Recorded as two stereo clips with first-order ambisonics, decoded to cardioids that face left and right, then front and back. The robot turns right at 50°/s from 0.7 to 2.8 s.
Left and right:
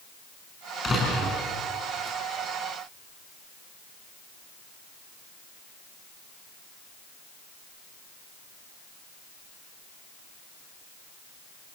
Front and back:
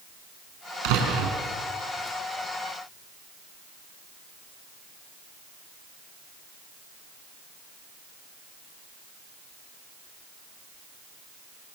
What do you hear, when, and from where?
0.8 s a door slam: 160° left, 6 m; by 1.4 s 175° right, 6 m